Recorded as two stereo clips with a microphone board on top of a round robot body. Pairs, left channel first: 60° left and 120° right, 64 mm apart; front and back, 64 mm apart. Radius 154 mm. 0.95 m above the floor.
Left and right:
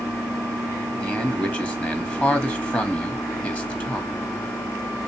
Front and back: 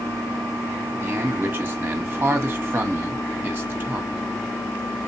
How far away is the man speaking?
About 1.4 m.